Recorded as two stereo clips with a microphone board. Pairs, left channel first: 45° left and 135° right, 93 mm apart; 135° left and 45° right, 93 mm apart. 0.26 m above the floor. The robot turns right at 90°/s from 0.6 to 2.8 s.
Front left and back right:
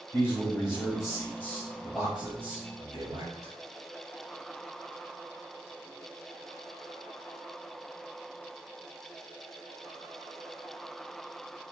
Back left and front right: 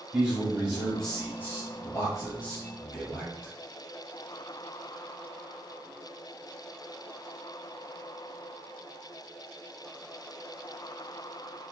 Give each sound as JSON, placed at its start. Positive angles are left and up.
{"t": 0.1, "sound": "a man speaking", "azimuth_deg": 15, "distance_m": 1.3}